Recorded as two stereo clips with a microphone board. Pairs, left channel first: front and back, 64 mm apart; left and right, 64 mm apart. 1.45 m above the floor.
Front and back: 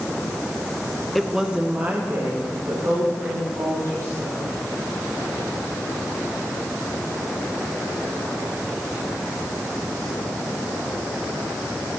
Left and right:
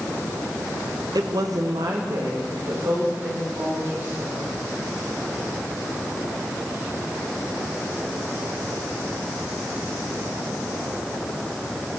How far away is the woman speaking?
About 0.7 m.